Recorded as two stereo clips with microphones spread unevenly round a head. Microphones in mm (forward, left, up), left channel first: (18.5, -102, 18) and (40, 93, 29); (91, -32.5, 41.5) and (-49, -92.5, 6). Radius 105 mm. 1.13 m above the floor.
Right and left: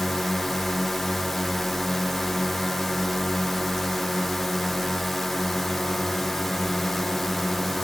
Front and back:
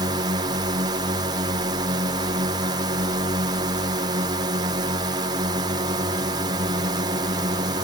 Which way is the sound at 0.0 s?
175° left.